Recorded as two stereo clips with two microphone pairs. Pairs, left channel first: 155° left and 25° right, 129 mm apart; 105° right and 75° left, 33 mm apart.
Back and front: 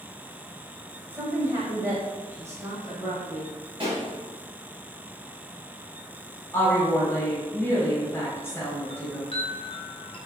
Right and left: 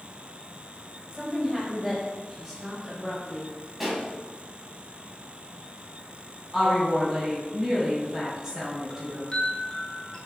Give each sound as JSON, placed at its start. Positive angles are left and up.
{"t": 1.1, "sound": "a woman speaking", "azimuth_deg": -15, "distance_m": 0.9}
{"t": 3.8, "sound": "a pop", "azimuth_deg": -15, "distance_m": 1.1}
{"t": 6.5, "sound": "a woman speaking", "azimuth_deg": 125, "distance_m": 1.5}
{"t": 8.9, "sound": "a chime", "azimuth_deg": -165, "distance_m": 0.7}